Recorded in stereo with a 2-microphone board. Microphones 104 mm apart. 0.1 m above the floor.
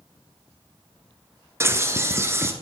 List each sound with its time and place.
1.6 s a bird: 25° right (ahead or behind), 0.7 m